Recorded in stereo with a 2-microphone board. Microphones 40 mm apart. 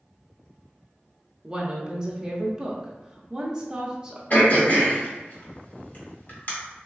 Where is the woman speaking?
20° right (ahead or behind), 0.6 m.